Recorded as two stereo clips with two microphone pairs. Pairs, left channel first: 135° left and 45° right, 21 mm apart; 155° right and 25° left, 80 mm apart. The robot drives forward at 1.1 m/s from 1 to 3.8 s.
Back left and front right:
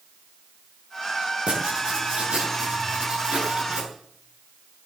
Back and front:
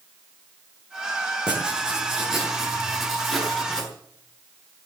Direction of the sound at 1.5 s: 50° right.